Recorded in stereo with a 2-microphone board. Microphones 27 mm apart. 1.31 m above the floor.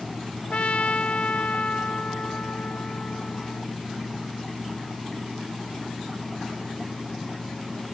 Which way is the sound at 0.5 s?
70° left (ahead or behind).